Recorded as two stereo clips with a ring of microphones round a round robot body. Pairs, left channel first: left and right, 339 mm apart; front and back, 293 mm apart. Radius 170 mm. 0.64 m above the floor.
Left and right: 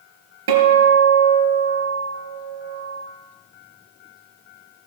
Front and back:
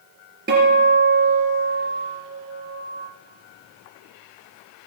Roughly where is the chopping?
No chopping in this recording.